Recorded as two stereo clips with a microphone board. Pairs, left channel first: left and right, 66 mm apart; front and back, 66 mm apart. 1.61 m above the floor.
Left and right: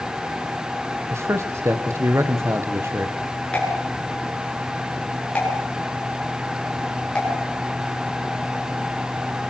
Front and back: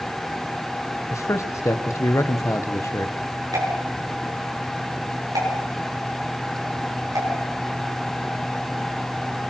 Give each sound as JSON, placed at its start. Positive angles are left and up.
{"t": 1.1, "sound": "a man speaking", "azimuth_deg": -40, "distance_m": 1.6}
{"t": 3.5, "sound": "a pop", "azimuth_deg": 165, "distance_m": 7.5}